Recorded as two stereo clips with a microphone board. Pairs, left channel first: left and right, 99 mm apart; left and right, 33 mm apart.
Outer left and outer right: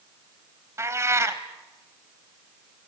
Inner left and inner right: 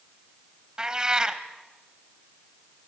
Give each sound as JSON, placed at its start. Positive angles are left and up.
{"t": 0.8, "sound": "a cat meowing", "side_deg": -25, "distance_m": 1.3}